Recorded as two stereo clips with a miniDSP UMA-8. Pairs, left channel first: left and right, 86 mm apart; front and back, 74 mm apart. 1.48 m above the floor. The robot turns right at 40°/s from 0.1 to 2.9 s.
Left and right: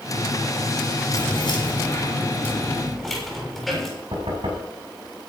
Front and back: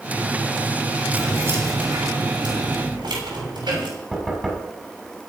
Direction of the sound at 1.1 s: 110° left.